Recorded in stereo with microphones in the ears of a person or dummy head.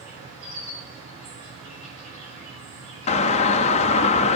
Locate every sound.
0.0 s an insect: 75° right (ahead or behind), 4.5 m
3.1 s a doorbell: 30° left (ahead or behind), 0.5 m